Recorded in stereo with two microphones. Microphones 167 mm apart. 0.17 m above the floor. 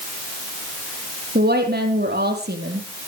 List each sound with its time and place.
1.4 s a woman speaking: 75° right (ahead or behind), 4.5 m